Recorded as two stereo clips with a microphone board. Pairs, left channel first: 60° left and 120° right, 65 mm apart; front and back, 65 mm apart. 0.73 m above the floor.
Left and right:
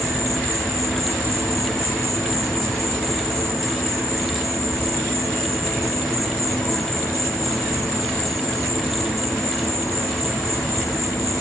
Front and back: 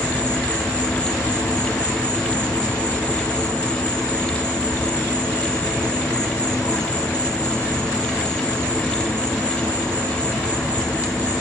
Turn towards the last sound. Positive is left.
turn(degrees=65)